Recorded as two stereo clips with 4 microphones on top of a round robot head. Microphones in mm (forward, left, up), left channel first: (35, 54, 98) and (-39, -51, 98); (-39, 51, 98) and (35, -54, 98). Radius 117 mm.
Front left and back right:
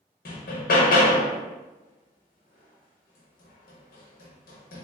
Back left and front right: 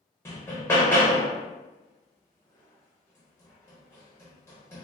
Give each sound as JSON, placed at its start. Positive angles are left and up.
{"t": 0.2, "sound": "hammering", "azimuth_deg": 55, "distance_m": 0.6}